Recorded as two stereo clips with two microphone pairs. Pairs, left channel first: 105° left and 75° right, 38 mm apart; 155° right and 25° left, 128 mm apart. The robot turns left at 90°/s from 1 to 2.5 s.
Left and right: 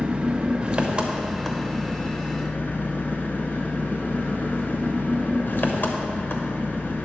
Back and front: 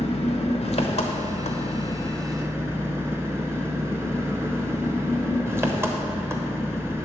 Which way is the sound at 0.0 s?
135° right.